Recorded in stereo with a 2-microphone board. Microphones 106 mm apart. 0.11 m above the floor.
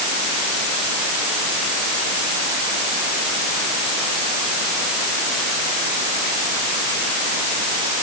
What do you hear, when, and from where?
Only background noise.